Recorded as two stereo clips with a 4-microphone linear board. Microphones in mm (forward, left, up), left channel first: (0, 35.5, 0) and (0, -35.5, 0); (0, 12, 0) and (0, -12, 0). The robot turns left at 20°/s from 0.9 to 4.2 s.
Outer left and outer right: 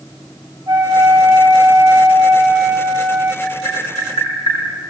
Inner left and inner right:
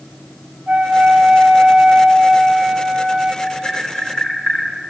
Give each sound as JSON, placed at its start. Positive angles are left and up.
{"t": 0.7, "sound": "a flute", "azimuth_deg": -110, "distance_m": 10.0}
{"t": 3.4, "sound": "tapping", "side_deg": 55, "distance_m": 8.5}